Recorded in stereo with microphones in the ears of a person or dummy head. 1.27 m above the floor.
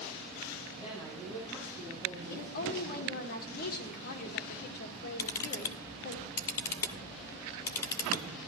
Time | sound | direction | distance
0.7 | a woman speaking | 10° left (ahead or behind) | 6.5 m
2.3 | a woman speaking | 55° left (ahead or behind) | 1.8 m
5.2 | a camera shutter | 20° left (ahead or behind) | 0.7 m